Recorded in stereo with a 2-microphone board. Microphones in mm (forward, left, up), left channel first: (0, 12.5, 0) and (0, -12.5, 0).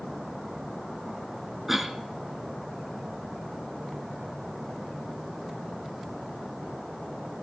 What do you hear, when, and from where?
1.7 s a cough: 10° right (ahead or behind), 1.1 m